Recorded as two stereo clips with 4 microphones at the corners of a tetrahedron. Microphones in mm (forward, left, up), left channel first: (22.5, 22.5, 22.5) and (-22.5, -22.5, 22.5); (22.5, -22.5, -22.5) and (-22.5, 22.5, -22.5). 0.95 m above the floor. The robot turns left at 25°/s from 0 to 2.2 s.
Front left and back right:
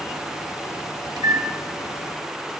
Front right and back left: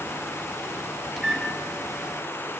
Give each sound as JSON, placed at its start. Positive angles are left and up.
{"t": 1.2, "sound": "a microwave", "azimuth_deg": -130, "distance_m": 1.1}